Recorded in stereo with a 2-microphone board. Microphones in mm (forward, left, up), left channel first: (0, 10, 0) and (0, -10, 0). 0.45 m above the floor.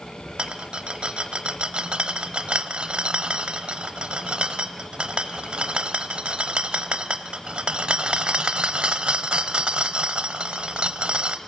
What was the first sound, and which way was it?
A rattle, 60° right (ahead or behind).